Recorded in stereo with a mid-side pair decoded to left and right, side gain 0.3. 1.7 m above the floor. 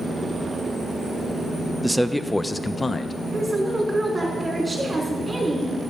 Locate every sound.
1.8 s a man speaking: 10° right, 0.8 m; by 3.1 s 45° left, 0.9 m
3.3 s a woman speaking: 30° right, 5 m